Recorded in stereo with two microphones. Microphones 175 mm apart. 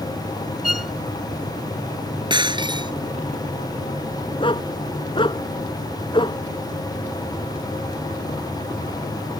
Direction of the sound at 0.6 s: 50° left (ahead or behind).